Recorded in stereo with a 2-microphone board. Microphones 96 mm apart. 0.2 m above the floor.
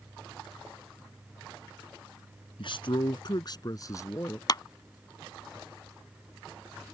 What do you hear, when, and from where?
2.6 s a man speaking: 60° left (ahead or behind); by 4.4 s 25° left (ahead or behind)
4.5 s a clap: 45° left (ahead or behind)